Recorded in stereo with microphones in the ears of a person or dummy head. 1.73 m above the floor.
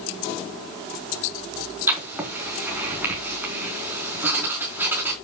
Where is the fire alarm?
No fire alarm in this recording.